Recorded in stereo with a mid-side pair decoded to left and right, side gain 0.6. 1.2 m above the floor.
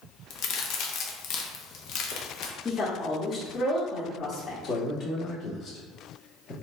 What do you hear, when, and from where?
0.3 s a crack: 65° left, 0.7 m
2.6 s a woman speaking: 35° left, 1.3 m
4.6 s a man speaking: 45° left, 1.9 m